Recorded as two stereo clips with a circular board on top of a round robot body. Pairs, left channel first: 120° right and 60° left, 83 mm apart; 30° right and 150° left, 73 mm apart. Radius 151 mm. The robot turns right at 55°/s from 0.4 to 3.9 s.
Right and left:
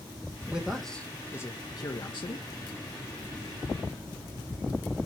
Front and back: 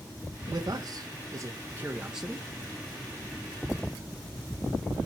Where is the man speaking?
140° left, 1.7 m; by 2.5 s 115° right, 1.7 m.